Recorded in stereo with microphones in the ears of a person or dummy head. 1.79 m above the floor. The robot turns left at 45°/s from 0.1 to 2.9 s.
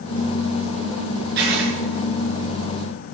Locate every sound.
1.4 s writing: 55° right (ahead or behind), 6 m; by 1.7 s 70° right (ahead or behind), 6 m